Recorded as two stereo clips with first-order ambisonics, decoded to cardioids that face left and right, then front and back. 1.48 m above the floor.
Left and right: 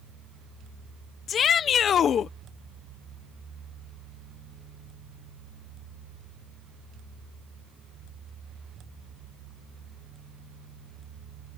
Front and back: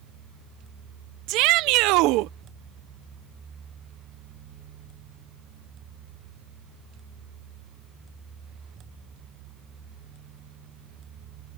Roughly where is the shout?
Behind left.